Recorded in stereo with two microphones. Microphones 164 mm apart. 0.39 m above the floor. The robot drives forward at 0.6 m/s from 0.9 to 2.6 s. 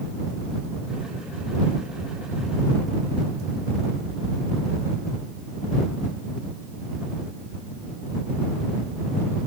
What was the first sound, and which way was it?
Only background noise.